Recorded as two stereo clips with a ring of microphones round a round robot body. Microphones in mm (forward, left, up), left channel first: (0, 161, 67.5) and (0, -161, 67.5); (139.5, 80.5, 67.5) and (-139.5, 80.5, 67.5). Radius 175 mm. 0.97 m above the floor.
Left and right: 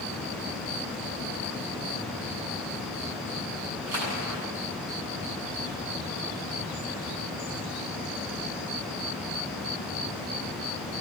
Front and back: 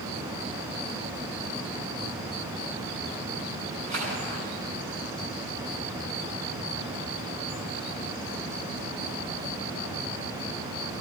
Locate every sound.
3.9 s a splash: 125° right, 9 m